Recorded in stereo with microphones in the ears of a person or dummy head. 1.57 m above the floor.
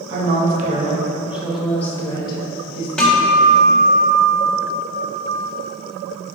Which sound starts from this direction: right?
A woman speaking, at 0.1 s.